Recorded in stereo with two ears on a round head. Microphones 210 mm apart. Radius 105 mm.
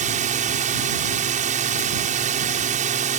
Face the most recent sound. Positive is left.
turn(degrees=-35)  # may be behind; listen again after turning